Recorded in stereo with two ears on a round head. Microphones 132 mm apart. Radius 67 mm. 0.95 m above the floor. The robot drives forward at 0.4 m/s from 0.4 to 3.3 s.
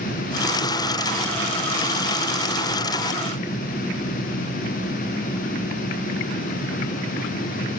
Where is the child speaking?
No child speaking in this recording.